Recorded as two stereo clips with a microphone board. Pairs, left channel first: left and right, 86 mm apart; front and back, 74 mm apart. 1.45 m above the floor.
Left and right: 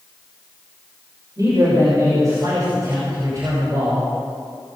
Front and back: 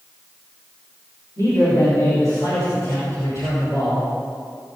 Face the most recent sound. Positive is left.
turn(degrees=-40)